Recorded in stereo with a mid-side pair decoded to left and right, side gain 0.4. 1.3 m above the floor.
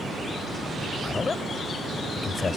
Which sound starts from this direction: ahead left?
A man speaking, at 1.0 s.